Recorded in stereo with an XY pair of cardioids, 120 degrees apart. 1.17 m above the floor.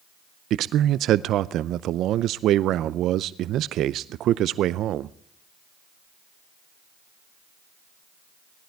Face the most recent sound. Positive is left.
turn(degrees=-65)